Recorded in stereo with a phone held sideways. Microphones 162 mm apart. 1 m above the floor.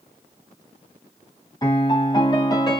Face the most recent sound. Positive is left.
turn(degrees=25)  # may be behind; listen again after turning